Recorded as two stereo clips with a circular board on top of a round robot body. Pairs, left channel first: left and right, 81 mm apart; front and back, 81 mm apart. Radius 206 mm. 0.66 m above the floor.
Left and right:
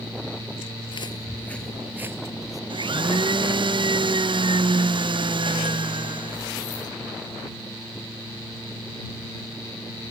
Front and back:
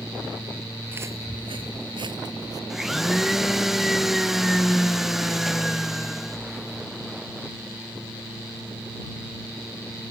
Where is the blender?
95° right.